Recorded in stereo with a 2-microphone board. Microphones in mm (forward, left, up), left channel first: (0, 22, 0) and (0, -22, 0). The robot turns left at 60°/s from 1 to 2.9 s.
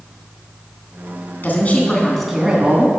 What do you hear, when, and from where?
1.4 s a woman speaking: 45° left, 3 m; by 2.9 s 40° right, 3 m